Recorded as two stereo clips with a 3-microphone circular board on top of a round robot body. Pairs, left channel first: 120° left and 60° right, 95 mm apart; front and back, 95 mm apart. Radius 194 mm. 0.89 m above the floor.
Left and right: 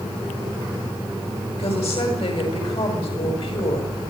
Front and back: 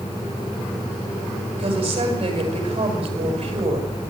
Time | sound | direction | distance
1.6 | a woman speaking | 145° left | 7.5 m